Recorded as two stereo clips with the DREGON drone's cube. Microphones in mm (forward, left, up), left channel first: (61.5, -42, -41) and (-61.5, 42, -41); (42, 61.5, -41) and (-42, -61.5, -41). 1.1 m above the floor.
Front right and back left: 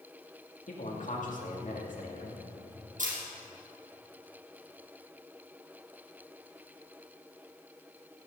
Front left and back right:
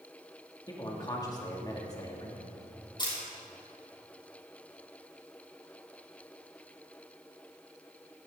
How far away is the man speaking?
About 2.5 m.